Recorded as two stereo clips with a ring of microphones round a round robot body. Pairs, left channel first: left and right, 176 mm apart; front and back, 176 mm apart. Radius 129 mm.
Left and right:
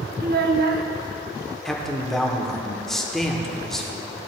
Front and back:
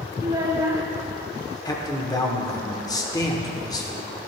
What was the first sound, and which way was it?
A child speaking, 110° right.